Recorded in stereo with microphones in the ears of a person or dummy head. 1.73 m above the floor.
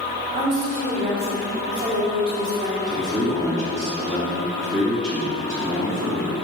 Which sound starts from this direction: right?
A woman speaking, at 0.3 s.